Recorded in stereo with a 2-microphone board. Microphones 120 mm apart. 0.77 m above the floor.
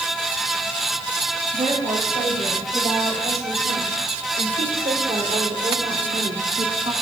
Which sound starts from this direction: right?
A woman speaking, at 1.5 s.